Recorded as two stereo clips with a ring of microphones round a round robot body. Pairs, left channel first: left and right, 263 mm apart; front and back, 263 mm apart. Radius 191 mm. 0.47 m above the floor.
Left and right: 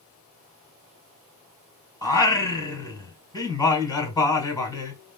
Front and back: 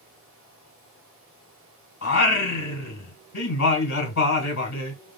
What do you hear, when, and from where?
2.0 s singing: 15° left, 1.5 m